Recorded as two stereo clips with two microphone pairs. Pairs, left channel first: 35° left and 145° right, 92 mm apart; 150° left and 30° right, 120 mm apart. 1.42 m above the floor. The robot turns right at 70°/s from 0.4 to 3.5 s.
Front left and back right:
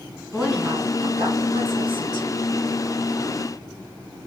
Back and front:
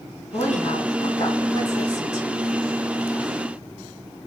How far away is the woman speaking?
About 2 m.